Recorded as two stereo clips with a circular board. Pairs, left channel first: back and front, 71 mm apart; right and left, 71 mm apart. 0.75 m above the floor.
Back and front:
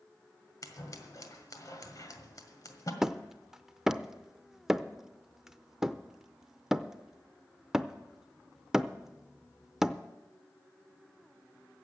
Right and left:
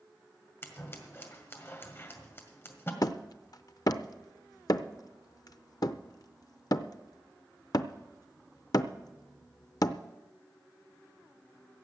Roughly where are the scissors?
Behind right.